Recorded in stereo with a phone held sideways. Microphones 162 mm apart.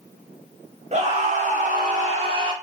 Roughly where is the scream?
Right.